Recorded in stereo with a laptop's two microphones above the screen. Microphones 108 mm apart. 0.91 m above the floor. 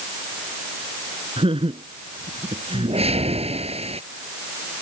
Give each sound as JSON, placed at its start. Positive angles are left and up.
{"t": 1.4, "sound": "laughter", "side_deg": -60}
{"t": 2.7, "sound": "a whoosh", "side_deg": -75}